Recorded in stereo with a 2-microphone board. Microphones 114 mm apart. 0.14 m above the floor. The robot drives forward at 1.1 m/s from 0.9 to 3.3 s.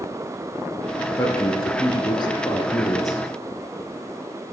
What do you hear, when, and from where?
1.2 s a man speaking: 30° left (ahead or behind), 1.7 m